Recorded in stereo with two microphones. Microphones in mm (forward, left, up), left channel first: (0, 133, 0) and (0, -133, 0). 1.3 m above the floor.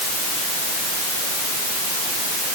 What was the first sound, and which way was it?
Only background noise.